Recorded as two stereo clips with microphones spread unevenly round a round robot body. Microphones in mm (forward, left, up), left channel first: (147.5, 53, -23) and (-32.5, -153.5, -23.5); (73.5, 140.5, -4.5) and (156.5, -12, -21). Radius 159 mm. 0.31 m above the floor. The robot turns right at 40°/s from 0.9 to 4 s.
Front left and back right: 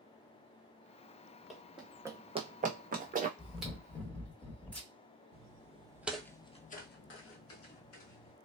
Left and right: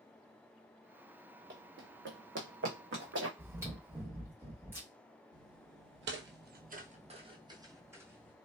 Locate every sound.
1.5 s running footsteps: 40° right, 1.0 m; by 3.3 s 65° right, 1.3 m
3.4 s chewing: 55° right, 1.5 m; by 4.9 s 30° right, 1.5 m
5.3 s footsteps: 75° right, 0.8 m; by 8.3 s 20° left, 1.4 m